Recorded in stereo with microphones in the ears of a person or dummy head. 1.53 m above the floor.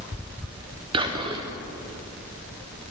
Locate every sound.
0.9 s whispering: 25° right (ahead or behind), 1.0 m